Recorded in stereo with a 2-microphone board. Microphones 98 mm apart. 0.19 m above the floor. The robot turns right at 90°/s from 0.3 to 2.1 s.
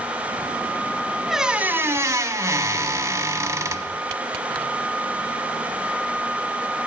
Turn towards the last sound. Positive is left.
turn(degrees=-105)